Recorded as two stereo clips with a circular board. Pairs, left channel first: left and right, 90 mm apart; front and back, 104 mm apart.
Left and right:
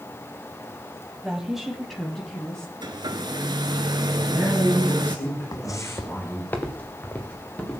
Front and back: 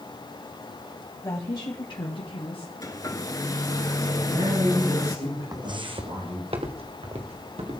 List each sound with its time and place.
1.2 s a woman speaking: 15° right, 1.1 m; by 2.7 s 15° left, 2 m
2.8 s a hair dryer: 55° right, 0.9 m
4.2 s a man speaking: 155° left, 9 m
5.5 s footsteps: 130° left, 0.7 m; by 7.8 s 165° left, 3.5 m